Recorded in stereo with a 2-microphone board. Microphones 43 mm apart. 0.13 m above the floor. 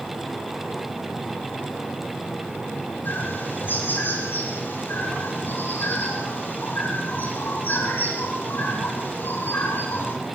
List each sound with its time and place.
3.0 s a bird: 55° left (ahead or behind), 5.5 m